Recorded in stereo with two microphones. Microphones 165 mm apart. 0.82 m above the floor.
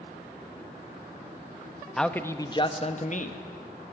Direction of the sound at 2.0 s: Centre (ahead or behind).